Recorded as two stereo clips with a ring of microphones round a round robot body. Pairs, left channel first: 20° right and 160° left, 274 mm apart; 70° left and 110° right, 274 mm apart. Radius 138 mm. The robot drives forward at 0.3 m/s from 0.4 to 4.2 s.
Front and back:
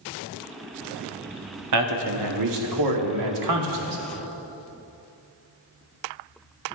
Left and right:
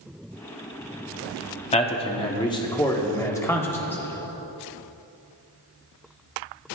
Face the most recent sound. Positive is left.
turn(degrees=150)